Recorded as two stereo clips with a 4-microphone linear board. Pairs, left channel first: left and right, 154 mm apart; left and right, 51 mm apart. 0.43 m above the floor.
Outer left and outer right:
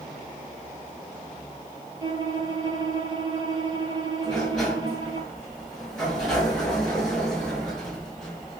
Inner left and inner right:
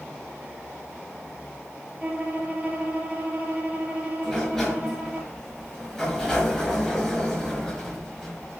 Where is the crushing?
No crushing in this recording.